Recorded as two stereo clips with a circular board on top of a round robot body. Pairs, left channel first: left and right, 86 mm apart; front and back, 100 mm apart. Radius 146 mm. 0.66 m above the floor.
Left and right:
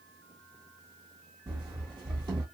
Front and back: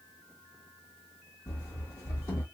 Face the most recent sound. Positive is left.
turn(degrees=-55)